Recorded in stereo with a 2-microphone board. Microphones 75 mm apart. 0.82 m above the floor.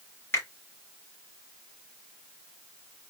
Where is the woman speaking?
No woman speaking in this recording.